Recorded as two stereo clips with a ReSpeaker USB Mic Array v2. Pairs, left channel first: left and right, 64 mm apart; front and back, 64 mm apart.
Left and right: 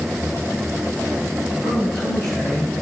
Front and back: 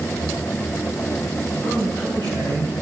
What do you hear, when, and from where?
1.6 s a woman speaking: 175° left, 4.5 m; by 2.7 s 165° left, 4.5 m